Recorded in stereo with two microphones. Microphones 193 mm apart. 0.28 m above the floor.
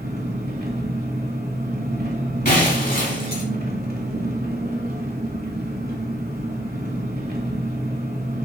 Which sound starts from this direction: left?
Breaking glass, at 2.5 s.